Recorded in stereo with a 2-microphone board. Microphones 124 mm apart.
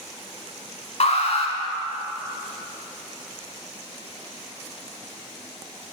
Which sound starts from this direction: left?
An alarm, at 1.0 s.